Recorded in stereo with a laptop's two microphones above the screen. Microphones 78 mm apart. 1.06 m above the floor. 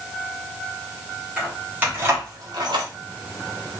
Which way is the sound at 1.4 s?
15° right (ahead or behind).